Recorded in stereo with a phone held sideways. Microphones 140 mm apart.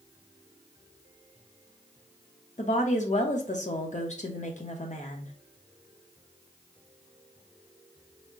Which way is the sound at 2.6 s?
60° left (ahead or behind).